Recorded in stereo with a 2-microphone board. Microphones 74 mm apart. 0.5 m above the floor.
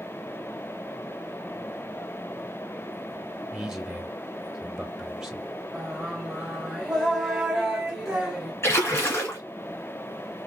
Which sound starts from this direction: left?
A splash, at 8.6 s.